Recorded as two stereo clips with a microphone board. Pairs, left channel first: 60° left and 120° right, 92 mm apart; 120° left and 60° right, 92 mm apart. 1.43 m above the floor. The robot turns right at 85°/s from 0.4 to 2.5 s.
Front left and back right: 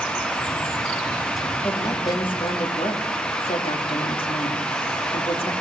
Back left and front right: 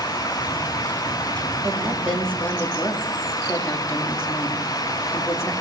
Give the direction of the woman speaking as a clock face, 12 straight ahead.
12 o'clock.